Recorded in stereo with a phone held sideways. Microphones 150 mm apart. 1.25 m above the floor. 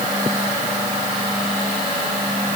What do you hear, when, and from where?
Only background noise.